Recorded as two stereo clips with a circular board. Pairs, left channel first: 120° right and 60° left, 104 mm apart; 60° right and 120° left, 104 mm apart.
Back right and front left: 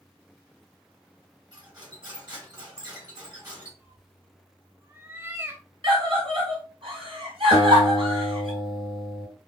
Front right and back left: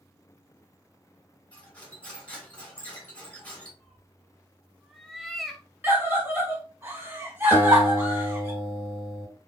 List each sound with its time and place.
1.5 s cutlery clinking: 15° left, 2.0 m
3.8 s a cat meowing: 25° left, 0.6 m
5.8 s a scream: 55° left, 1.7 m
7.5 s a guitar: 75° left, 1.9 m